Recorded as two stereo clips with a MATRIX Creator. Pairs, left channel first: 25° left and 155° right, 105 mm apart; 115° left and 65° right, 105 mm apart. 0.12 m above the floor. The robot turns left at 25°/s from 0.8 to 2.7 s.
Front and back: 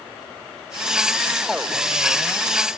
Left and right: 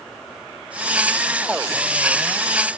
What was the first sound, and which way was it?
Only background noise.